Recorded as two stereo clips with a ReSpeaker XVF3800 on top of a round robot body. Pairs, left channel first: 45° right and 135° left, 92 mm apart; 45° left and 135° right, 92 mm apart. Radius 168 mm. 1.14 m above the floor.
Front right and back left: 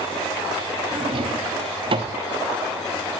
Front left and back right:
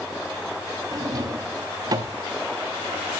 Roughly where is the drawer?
Behind.